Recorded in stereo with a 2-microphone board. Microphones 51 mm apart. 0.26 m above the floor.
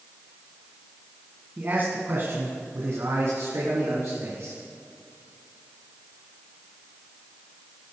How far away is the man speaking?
About 1.9 m.